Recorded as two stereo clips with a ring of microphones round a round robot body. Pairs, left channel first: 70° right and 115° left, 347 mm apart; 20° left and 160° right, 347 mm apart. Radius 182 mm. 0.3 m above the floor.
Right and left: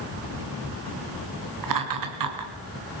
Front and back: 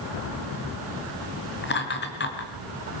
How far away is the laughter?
About 4.5 m.